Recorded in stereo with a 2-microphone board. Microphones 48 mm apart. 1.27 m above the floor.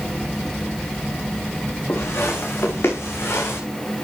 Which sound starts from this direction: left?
Footsteps, at 1.9 s.